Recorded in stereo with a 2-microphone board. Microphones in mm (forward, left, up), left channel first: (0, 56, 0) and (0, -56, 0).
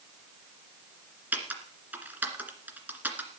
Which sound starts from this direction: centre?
Typing on a keyboard, at 1.3 s.